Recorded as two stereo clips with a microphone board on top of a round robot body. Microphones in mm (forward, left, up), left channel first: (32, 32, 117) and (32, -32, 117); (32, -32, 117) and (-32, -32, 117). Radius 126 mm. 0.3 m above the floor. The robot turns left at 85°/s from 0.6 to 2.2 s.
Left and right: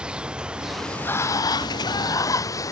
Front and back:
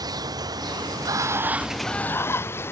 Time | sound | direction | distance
0.0 | running water | 170° right | ?